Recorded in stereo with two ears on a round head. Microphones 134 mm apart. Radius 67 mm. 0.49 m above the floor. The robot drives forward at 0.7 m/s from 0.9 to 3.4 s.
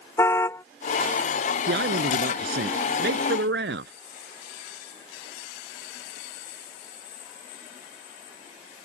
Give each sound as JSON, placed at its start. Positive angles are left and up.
{"t": 0.2, "sound": "a car horn", "side_deg": 15}
{"t": 1.7, "sound": "a man speaking", "side_deg": -70}